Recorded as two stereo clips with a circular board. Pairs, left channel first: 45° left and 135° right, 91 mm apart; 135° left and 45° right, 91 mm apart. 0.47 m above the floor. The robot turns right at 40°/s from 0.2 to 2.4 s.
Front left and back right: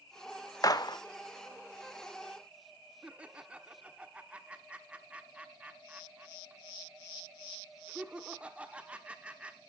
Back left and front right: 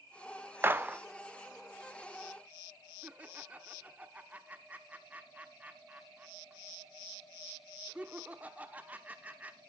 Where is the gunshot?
10° left, 0.6 m; by 1.0 s 25° left, 0.6 m.